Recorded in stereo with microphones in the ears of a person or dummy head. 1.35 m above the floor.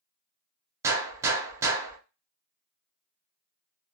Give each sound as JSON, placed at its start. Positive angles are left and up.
{"t": 0.8, "sound": "a gunshot", "side_deg": -20, "distance_m": 0.7}